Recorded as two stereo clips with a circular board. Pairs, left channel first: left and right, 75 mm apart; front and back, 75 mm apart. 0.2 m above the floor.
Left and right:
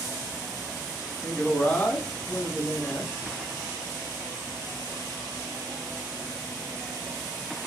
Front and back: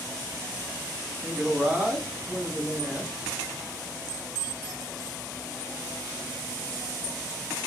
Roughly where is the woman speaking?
Behind left.